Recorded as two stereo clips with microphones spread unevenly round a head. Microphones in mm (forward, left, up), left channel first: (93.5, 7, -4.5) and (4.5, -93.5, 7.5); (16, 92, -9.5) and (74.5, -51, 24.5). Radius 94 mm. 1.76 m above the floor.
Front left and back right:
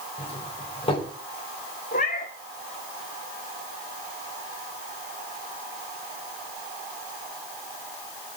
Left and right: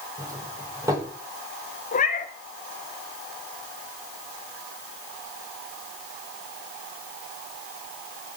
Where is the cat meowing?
75° left, 1.8 m.